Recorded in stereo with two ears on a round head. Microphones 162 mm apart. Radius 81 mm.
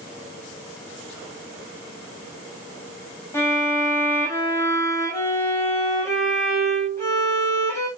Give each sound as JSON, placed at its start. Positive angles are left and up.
{"t": 3.3, "sound": "a violin", "side_deg": 15, "distance_m": 7.0}